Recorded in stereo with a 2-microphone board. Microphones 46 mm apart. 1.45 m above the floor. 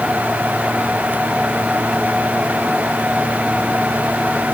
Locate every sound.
Only background noise.